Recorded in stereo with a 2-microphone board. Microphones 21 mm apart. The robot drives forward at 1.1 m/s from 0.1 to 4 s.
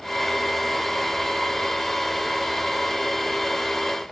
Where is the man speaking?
I don't hear a man speaking.